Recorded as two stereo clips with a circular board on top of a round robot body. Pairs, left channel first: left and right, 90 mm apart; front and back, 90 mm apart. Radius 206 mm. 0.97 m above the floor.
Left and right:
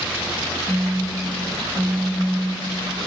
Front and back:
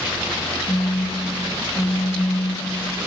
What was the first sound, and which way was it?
A phone buzzing, 15° right.